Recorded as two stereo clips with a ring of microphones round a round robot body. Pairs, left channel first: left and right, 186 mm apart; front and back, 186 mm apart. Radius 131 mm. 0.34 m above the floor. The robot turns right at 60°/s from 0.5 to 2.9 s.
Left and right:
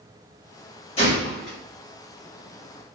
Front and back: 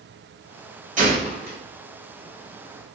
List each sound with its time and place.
1.0 s a gunshot: 145° left, 1.1 m; by 1.6 s straight behind, 1.1 m